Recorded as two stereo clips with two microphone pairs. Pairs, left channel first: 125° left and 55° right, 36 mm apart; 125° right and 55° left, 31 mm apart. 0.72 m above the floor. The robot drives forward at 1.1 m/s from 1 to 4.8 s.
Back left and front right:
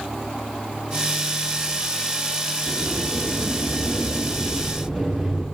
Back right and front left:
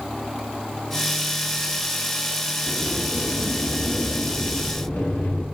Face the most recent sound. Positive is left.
turn(degrees=-140)